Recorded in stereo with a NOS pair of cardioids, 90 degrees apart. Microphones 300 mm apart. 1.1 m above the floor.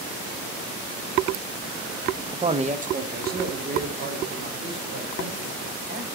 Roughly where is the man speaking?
Ahead.